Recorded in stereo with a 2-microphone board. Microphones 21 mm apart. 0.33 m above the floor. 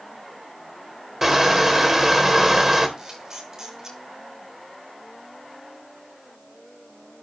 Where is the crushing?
20° right (ahead or behind), 1.3 m.